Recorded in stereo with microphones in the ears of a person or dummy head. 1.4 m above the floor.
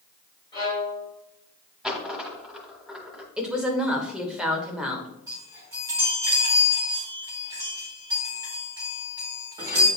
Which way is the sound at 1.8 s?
5° right (ahead or behind).